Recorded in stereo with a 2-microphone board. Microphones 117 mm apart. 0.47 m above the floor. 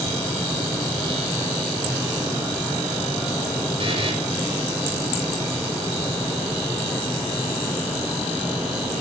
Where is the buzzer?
55° right (ahead or behind), 7.5 m.